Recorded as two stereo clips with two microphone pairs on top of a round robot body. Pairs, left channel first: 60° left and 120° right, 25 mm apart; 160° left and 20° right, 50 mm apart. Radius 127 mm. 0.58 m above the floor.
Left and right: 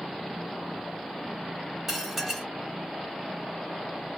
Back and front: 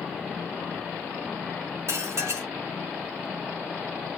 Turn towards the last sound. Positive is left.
turn(degrees=-40)